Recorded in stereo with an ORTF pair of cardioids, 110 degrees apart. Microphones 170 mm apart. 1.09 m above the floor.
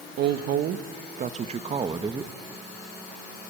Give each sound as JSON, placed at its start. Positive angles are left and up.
{"t": 0.2, "sound": "a woman speaking", "azimuth_deg": -70, "distance_m": 1.5}